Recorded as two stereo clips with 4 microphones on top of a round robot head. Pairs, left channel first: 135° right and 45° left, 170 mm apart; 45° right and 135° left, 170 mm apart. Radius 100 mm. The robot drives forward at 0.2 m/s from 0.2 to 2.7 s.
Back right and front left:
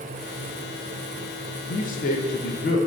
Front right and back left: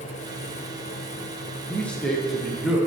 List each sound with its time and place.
1.7 s a man speaking: 120° right, 0.6 m; by 2.8 s 140° right, 0.7 m